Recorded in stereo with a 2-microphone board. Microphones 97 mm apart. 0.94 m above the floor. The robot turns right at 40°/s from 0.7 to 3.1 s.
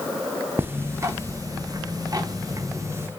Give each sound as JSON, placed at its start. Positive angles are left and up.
{"t": 0.6, "sound": "ticking", "azimuth_deg": -140, "distance_m": 0.6}